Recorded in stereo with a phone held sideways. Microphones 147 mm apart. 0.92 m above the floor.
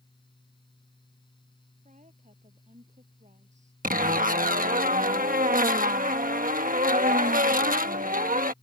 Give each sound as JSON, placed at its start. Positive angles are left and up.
{"t": 0.0, "sound": "a fan", "side_deg": 35}
{"t": 1.9, "sound": "a woman speaking", "side_deg": -50}
{"t": 3.8, "sound": "a zipper", "side_deg": -65}